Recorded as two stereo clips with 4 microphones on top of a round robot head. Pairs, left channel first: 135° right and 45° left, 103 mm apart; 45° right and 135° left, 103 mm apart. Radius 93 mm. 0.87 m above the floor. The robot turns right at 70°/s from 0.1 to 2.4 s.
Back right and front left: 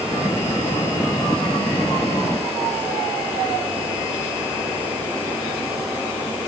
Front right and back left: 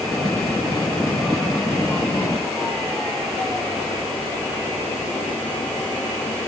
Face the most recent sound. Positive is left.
No sound to turn to.